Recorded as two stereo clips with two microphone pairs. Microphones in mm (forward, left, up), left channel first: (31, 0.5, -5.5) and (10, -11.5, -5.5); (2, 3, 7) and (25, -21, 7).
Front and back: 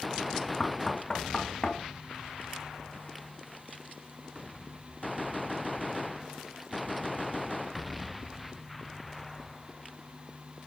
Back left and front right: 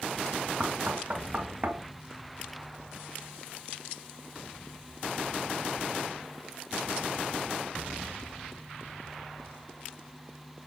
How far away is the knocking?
About 1.4 m.